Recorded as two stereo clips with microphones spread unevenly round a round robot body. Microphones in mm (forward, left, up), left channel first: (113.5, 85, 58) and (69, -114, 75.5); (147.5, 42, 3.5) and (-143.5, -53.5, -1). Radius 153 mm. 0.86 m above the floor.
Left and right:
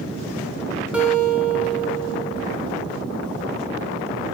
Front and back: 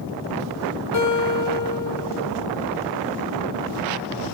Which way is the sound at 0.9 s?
20° right.